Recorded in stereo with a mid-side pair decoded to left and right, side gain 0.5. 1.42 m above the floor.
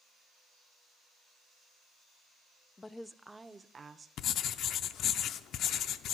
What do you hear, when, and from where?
2.8 s a woman speaking: 25° left, 0.6 m; by 4.1 s 35° right, 1.0 m
4.2 s writing: 65° left, 0.5 m